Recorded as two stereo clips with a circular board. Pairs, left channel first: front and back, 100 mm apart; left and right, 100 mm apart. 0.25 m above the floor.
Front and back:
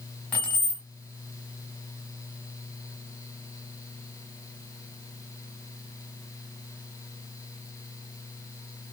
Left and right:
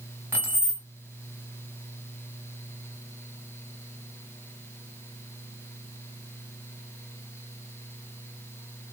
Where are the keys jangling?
60° right, 1.0 m.